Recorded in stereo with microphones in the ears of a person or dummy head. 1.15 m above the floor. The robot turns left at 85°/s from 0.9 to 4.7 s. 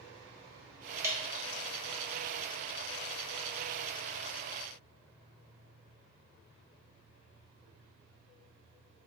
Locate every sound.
1.0 s dripping: 15° right (ahead or behind), 0.9 m; by 1.6 s 60° right (ahead or behind), 0.9 m